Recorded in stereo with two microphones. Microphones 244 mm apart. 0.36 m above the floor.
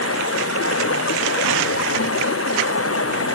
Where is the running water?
75° left (ahead or behind).